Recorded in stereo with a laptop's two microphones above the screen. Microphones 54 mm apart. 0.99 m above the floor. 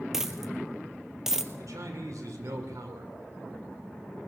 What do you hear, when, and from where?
0.1 s a dropped coin: 10° right (ahead or behind), 1.8 m
1.6 s a man speaking: 85° right, 2.5 m